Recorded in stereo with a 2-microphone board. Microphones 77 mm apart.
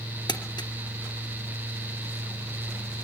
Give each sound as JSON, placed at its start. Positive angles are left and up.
{"t": 0.3, "sound": "crumpling", "side_deg": 75, "distance_m": 3.0}